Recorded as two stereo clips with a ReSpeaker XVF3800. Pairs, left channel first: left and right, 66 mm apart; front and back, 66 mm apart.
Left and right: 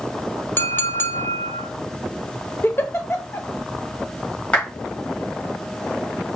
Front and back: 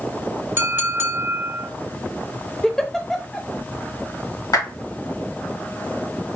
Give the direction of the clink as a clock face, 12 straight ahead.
8 o'clock.